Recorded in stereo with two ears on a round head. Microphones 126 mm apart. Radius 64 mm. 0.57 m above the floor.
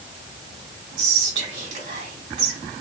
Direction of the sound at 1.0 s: 50° right (ahead or behind).